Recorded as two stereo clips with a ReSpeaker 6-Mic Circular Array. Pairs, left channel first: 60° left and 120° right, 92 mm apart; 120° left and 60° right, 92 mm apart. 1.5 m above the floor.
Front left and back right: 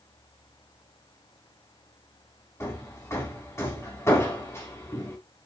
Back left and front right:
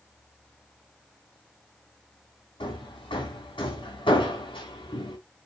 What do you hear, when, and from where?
2.6 s hammering: 115° left, 3 m